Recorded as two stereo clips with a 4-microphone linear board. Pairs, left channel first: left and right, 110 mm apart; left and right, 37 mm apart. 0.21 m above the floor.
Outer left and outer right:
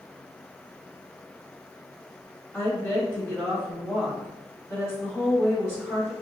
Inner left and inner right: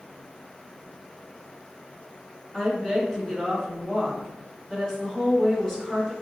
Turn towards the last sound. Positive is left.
turn(degrees=20)  # may be behind; listen again after turning